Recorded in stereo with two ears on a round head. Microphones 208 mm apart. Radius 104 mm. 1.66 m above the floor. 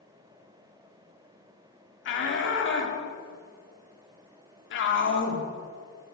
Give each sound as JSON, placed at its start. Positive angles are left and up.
{"t": 2.0, "sound": "a shout", "side_deg": 50, "distance_m": 3.5}